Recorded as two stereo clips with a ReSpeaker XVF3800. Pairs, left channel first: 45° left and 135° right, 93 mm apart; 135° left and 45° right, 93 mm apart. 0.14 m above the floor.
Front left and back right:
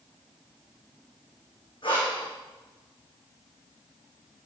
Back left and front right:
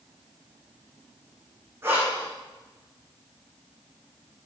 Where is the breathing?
20° left, 4.5 m.